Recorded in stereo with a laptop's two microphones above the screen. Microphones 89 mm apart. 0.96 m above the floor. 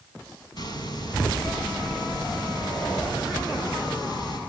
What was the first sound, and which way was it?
A hiss, 50° left (ahead or behind).